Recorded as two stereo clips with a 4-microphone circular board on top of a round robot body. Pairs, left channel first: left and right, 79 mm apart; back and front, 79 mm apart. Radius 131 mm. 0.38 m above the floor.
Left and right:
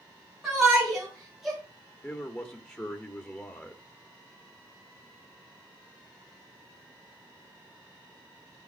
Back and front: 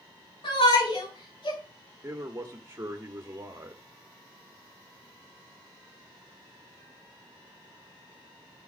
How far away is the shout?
About 4.5 m.